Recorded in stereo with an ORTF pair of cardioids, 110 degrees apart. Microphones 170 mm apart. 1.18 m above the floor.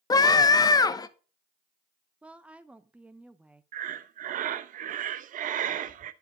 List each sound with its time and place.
0.1 s a scream: 25° left, 1.1 m
2.2 s a woman speaking: 5° right, 0.6 m
3.7 s breathing: 55° right, 0.8 m